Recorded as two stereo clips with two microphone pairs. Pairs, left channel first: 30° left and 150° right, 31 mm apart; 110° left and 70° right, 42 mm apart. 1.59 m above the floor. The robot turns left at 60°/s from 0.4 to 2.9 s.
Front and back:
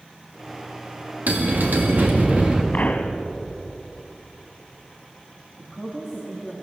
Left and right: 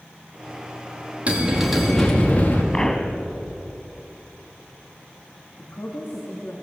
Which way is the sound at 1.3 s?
130° right.